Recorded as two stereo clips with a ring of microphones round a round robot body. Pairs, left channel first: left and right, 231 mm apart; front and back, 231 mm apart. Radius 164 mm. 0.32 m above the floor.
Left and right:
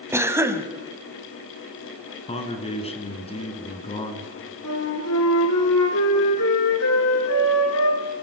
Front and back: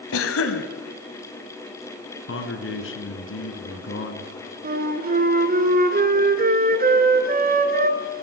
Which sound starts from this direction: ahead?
A cough, at 0.1 s.